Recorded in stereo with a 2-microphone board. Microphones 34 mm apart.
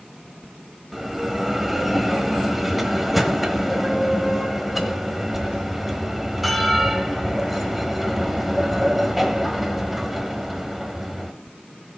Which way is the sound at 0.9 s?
5° right (ahead or behind).